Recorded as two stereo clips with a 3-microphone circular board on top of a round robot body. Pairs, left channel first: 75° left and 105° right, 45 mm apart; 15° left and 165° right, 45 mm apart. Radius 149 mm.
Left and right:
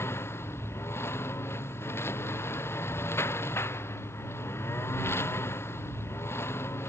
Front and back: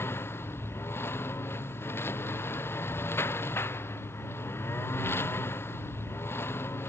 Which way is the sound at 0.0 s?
45° left.